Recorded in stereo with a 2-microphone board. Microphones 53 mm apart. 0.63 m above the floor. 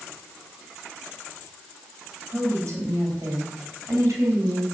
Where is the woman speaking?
70° right (ahead or behind), 5 m.